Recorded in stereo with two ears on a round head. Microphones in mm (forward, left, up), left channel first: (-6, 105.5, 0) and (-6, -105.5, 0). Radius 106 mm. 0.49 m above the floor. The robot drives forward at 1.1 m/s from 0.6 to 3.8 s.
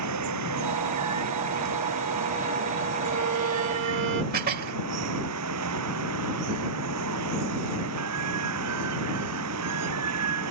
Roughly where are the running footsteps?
I don't hear running footsteps.